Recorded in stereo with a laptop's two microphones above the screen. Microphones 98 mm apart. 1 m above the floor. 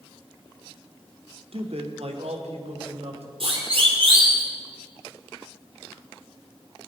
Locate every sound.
1.5 s a man speaking: 65° right (ahead or behind), 1.8 m; by 3.3 s 80° right, 4 m
3.4 s a siren: 65° right (ahead or behind), 3 m; by 4.4 s 55° right (ahead or behind), 3.5 m